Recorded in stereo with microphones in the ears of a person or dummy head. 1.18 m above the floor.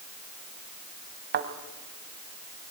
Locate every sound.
1.3 s a thud: 50° right (ahead or behind), 1.9 m